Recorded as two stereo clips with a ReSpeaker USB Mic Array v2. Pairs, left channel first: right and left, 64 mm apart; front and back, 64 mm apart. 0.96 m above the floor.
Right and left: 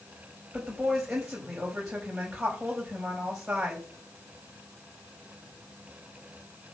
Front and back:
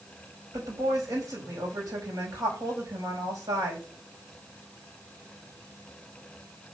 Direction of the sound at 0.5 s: 170° left.